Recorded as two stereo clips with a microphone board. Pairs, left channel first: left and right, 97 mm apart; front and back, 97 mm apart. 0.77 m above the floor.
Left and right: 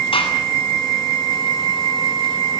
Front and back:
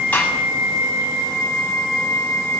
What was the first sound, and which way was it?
A gunshot, 75° left.